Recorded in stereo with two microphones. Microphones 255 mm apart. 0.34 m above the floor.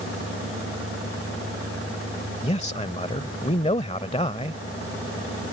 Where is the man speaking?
25° left (ahead or behind).